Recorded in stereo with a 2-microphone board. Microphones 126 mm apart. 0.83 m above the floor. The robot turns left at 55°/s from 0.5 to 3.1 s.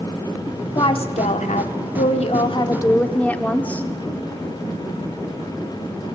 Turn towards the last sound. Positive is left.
turn(degrees=15)